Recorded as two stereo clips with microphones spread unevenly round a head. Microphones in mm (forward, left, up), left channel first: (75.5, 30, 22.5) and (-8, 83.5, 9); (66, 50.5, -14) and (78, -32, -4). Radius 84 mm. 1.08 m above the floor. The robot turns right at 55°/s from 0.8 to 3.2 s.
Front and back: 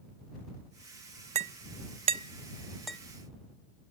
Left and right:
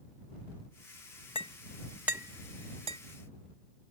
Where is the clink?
155° left; by 3.0 s 115° right.